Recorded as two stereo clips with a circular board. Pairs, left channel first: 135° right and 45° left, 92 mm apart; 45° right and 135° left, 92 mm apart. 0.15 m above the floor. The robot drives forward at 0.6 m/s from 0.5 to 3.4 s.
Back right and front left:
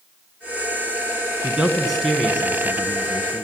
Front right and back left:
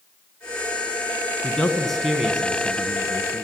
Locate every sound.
1.4 s a man speaking: straight ahead, 1.1 m; by 3.5 s straight behind, 1.3 m